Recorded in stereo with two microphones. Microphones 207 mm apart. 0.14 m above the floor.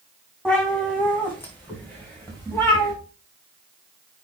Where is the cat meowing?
5° left (ahead or behind), 3.5 m; by 2.9 s 10° left (ahead or behind), 5 m.